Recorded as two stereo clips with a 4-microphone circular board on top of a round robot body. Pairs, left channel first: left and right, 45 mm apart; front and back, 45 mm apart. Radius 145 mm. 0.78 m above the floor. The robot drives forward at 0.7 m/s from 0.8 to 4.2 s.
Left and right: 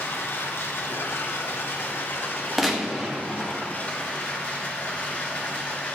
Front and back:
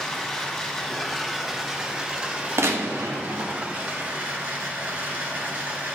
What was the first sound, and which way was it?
Running water, 75° left.